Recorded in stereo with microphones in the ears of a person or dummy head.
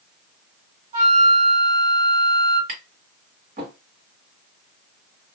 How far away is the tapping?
About 1.4 m.